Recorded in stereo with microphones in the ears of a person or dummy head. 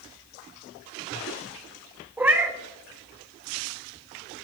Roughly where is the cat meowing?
Centre.